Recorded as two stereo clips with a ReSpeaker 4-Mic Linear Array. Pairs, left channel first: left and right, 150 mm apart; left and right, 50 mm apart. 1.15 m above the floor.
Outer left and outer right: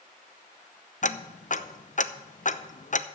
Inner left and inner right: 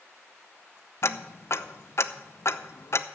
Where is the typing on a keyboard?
No typing on a keyboard in this recording.